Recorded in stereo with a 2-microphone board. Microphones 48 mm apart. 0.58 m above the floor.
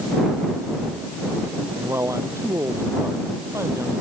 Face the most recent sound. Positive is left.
turn(degrees=-80)